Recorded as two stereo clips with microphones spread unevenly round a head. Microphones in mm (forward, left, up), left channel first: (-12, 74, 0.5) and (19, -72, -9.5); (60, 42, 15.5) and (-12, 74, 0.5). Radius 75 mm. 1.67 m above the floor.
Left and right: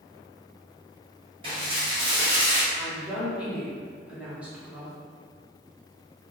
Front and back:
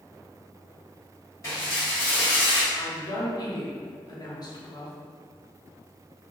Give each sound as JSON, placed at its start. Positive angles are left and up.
{"t": 1.4, "sound": "dishes clattering", "azimuth_deg": -30, "distance_m": 1.0}
{"t": 2.7, "sound": "a woman speaking", "azimuth_deg": 5, "distance_m": 0.9}